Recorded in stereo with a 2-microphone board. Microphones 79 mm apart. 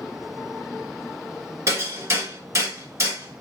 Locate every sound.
1.7 s hammering: 40° right (ahead or behind), 1.3 m